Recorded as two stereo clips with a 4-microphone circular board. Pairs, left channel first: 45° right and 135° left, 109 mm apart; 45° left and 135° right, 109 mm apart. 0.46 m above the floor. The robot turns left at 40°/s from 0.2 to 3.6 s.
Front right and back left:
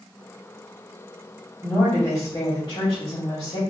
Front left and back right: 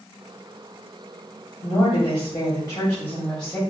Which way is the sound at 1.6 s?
35° left.